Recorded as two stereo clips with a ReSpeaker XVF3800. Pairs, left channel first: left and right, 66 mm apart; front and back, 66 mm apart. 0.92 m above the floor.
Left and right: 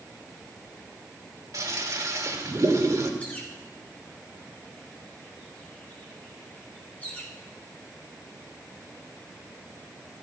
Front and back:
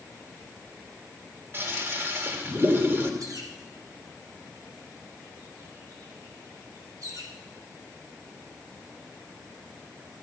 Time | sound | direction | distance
1.5 | a toilet flushing | 125° right | 1.9 m
3.2 | a bird | 155° left | 3 m